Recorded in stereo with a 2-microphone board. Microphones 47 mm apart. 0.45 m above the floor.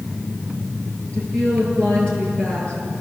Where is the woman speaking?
20° left (ahead or behind), 10 m.